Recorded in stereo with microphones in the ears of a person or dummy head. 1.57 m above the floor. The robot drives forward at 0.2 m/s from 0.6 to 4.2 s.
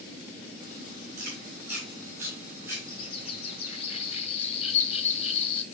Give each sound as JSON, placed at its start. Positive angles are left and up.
{"t": 1.2, "sound": "chewing", "side_deg": -20, "distance_m": 8.0}
{"t": 2.9, "sound": "a bird", "side_deg": 35, "distance_m": 2.0}